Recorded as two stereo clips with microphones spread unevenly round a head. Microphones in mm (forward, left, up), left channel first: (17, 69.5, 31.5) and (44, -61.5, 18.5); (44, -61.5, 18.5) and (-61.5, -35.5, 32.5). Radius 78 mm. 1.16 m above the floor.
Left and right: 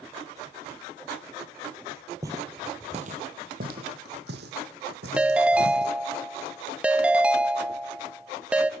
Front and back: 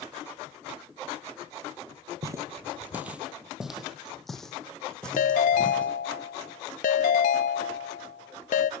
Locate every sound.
2.2 s footsteps: 150° right, 1.7 m; by 5.9 s 95° right, 4 m
5.2 s a ringtone: 5° left, 0.7 m